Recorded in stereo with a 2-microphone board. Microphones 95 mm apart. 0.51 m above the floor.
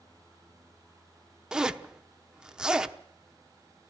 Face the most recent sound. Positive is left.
turn(degrees=-10)  # may be behind; listen again after turning